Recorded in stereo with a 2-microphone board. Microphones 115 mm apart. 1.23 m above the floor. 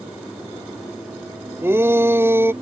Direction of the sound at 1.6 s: 20° right (ahead or behind).